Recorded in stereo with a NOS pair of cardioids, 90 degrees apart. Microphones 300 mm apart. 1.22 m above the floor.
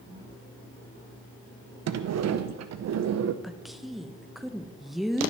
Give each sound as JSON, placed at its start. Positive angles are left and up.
{"t": 1.9, "sound": "a sliding door", "azimuth_deg": -55, "distance_m": 0.8}
{"t": 3.4, "sound": "a woman speaking", "azimuth_deg": 0, "distance_m": 0.8}